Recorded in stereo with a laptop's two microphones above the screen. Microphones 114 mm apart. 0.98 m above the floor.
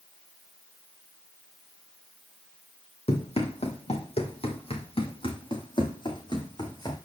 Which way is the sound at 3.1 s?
65° left (ahead or behind).